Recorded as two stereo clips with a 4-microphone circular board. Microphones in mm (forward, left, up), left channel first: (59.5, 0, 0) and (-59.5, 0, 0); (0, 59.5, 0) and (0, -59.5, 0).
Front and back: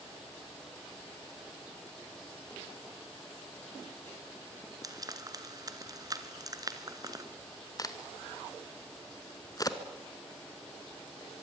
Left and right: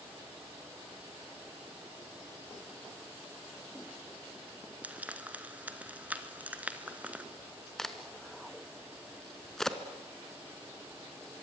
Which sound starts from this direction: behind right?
Frying, at 4.8 s.